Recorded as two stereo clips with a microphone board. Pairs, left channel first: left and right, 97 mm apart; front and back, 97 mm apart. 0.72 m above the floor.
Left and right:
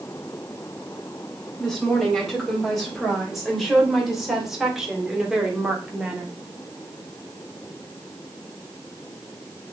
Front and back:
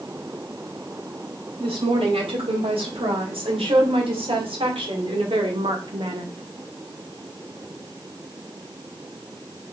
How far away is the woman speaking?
About 4 m.